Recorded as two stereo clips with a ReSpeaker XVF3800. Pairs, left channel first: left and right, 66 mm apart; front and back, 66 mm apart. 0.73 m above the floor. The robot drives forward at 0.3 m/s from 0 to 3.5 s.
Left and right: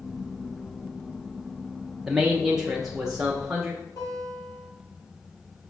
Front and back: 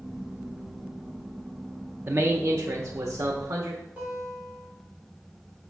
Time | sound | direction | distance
2.1 | a man speaking | 170° right | 0.5 m
4.0 | a guitar | 115° left | 2.5 m